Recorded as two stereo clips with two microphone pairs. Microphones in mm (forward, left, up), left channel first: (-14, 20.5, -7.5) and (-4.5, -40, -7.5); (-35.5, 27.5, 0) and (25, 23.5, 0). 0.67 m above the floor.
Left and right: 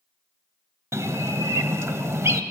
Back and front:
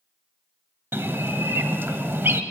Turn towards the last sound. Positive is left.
turn(degrees=-50)